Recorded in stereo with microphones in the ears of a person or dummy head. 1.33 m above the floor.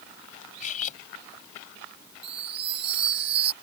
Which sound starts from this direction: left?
Cutlery clinking, at 0.6 s.